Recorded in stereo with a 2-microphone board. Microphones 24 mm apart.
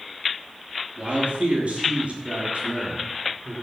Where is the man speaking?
55° right (ahead or behind), 5 m; by 3.5 s 70° right (ahead or behind), 4.5 m.